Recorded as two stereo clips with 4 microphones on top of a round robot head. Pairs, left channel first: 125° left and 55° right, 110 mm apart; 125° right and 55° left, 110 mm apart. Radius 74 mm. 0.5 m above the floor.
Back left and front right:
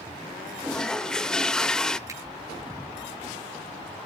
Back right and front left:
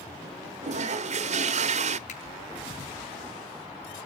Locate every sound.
0.6 s a toilet flushing: 45° left, 0.8 m
2.1 s a finger snap: 115° right, 5 m